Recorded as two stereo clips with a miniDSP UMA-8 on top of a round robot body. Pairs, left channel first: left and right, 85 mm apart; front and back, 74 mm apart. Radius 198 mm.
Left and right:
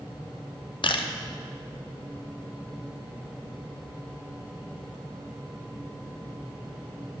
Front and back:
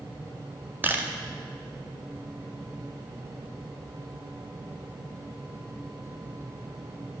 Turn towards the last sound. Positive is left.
turn(degrees=115)